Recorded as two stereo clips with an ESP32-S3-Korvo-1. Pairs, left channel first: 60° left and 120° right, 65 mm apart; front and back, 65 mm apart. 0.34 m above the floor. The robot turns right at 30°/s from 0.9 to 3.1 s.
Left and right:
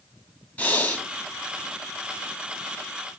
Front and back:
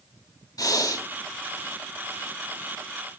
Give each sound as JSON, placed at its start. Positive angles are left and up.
{"t": 0.6, "sound": "breathing", "azimuth_deg": -5, "distance_m": 2.5}